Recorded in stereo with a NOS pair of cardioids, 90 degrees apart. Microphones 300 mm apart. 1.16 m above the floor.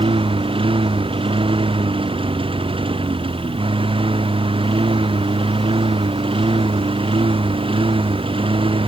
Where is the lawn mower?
15° right.